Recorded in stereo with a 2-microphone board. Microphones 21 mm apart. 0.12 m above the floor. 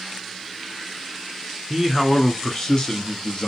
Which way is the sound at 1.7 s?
5° right (ahead or behind).